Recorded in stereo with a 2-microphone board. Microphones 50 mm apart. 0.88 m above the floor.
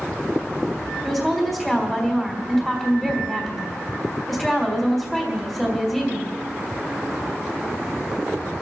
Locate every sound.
1.0 s a woman speaking: 5° left (ahead or behind), 3 m